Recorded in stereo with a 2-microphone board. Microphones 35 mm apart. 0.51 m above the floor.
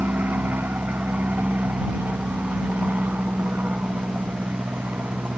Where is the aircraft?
70° right (ahead or behind).